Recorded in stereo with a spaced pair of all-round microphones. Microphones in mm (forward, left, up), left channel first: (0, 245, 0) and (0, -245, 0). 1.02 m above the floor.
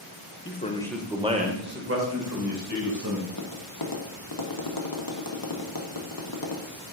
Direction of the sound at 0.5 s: 25° left (ahead or behind).